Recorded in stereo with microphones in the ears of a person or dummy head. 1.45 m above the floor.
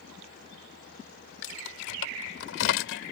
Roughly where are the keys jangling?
Left.